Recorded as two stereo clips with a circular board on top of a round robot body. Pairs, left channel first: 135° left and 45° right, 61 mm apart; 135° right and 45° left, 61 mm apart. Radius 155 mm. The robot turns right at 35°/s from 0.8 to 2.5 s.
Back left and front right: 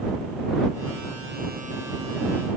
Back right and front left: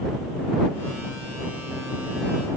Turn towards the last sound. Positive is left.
No sound to turn to.